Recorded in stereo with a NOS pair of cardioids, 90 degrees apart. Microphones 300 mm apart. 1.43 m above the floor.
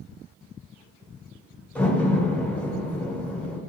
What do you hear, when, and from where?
1.8 s a door slam: 5° left, 1.0 m